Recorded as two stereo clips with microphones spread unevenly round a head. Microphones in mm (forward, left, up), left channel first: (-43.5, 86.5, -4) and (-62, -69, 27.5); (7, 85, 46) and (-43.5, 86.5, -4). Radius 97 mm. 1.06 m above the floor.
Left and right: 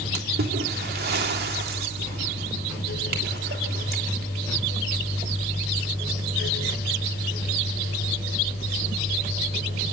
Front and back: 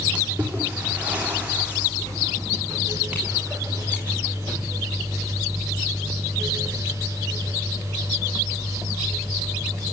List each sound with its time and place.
0.1 s a splash: 115° right, 3 m